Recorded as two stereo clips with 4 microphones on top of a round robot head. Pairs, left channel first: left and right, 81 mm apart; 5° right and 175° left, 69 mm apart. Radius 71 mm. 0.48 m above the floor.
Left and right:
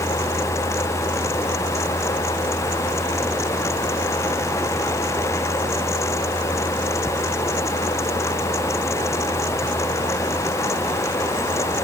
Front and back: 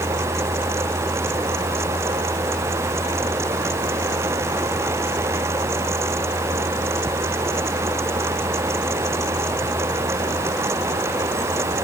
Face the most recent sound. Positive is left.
No sound to turn to.